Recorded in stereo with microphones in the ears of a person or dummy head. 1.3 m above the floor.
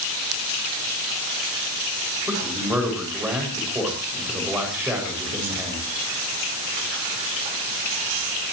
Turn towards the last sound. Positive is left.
turn(degrees=-5)  # may be behind; listen again after turning